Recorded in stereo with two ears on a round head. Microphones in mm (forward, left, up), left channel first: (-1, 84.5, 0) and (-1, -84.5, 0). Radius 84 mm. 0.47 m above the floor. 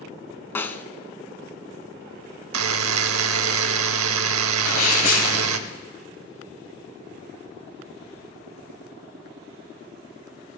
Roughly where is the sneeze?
Left.